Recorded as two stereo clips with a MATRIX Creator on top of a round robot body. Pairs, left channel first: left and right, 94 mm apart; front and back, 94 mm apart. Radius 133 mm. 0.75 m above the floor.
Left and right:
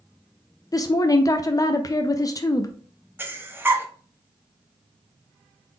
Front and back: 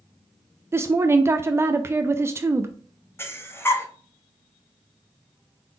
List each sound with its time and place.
0.7 s a woman speaking: 125° left, 0.5 m
3.2 s breathing: 40° right, 0.9 m